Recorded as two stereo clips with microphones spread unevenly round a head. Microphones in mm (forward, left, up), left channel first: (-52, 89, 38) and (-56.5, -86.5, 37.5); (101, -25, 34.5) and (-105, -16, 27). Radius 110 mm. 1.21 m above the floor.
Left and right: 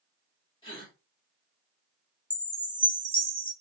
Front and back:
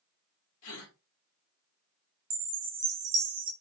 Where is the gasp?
20° left, 1.3 m.